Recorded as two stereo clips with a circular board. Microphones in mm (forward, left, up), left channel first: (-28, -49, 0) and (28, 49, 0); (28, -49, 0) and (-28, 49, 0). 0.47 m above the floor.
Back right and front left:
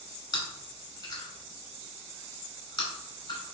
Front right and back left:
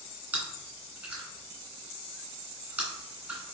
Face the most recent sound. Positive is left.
turn(degrees=-165)